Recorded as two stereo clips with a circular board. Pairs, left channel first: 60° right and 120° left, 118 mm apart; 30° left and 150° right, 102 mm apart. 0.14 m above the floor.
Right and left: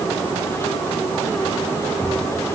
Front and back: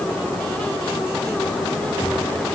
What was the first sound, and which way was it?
Only background noise.